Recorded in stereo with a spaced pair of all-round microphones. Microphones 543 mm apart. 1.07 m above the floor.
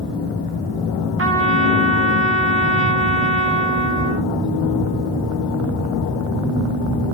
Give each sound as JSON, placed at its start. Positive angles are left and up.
{"t": 1.2, "sound": "a trumpet", "side_deg": -25, "distance_m": 0.6}